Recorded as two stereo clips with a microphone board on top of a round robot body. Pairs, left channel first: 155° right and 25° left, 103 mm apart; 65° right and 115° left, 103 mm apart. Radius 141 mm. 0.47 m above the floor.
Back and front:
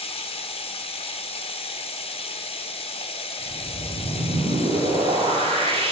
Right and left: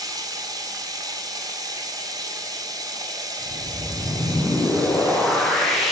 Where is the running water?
170° left, 0.7 m.